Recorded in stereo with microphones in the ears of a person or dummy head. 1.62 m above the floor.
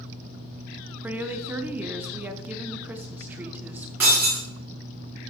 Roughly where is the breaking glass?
Centre.